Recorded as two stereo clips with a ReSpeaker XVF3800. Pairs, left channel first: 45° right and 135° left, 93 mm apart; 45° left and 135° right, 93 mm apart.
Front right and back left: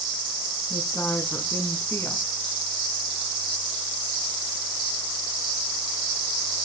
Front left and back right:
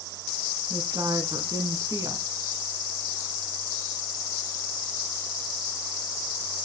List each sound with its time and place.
0.7 s a woman speaking: 105° right, 1.7 m